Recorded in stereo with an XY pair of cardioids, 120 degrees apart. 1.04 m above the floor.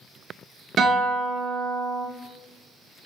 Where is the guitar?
40° right, 0.8 m.